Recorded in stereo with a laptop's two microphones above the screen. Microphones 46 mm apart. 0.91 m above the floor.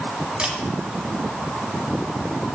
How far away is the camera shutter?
About 1.4 m.